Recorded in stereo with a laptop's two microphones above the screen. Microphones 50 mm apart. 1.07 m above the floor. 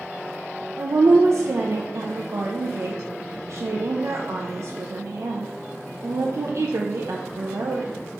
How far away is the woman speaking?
About 0.6 m.